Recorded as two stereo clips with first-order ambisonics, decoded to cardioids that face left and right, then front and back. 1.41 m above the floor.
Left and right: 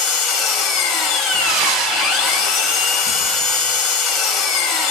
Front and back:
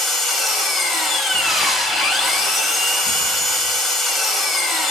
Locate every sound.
0.0 s an engine running: 65° left, 1.5 m
1.3 s breathing: 70° right, 1.6 m